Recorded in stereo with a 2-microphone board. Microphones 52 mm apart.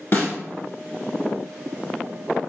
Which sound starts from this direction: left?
A snare drum, at 0.1 s.